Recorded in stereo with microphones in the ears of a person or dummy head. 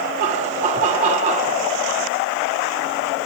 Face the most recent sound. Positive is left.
turn(degrees=-40)  # may be behind; listen again after turning